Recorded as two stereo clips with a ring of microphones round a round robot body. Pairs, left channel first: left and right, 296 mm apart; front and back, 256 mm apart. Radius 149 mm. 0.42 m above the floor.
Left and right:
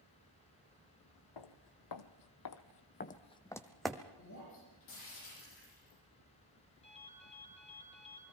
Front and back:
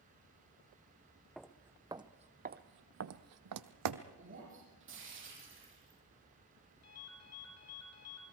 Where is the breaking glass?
140° left, 10 m.